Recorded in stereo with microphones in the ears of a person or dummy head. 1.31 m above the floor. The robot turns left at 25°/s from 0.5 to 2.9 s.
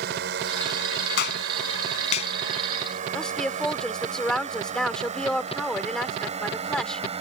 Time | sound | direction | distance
0.0 | a drone | 65° right (ahead or behind) | ?
1.2 | a clap | 65° left (ahead or behind) | ?
3.1 | a woman speaking | 5° left (ahead or behind) | ?